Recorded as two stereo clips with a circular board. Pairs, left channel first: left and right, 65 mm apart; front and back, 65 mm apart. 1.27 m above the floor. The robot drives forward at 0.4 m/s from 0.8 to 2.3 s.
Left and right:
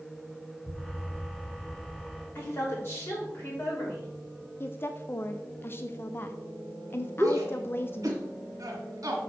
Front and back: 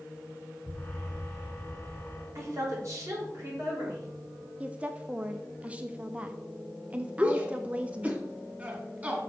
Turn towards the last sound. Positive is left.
turn(degrees=-115)